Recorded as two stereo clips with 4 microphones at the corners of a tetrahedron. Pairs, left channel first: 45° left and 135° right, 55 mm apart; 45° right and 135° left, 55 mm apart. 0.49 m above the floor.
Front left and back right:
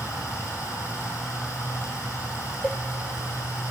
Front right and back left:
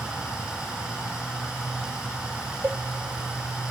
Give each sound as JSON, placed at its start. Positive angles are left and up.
{"t": 0.0, "sound": "running water", "azimuth_deg": 60, "distance_m": 9.0}
{"t": 2.6, "sound": "a cowbell", "azimuth_deg": 100, "distance_m": 0.6}